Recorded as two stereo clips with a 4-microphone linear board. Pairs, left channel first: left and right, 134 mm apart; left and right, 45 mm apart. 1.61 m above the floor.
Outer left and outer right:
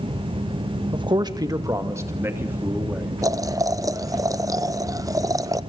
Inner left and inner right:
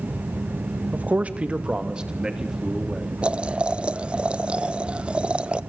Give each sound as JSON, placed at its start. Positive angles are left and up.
{"t": 0.9, "sound": "a man speaking", "side_deg": -40, "distance_m": 1.8}
{"t": 3.2, "sound": "boiling", "side_deg": -25, "distance_m": 0.8}